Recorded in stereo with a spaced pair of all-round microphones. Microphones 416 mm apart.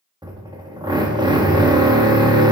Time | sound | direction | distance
0.2 | a drill | 10° right (ahead or behind) | 1.2 m